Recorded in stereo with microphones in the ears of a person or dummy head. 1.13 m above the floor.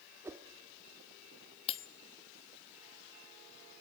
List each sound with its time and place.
0.2 s a whoosh: 10° right (ahead or behind), 1.0 m
1.7 s cutlery clinking: 35° left (ahead or behind), 1.0 m